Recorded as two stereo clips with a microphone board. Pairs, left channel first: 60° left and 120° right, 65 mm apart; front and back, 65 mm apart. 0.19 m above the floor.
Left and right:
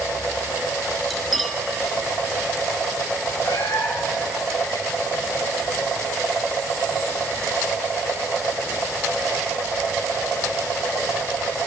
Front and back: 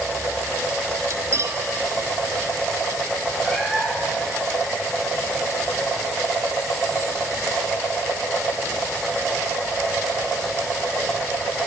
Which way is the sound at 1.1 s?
150° left.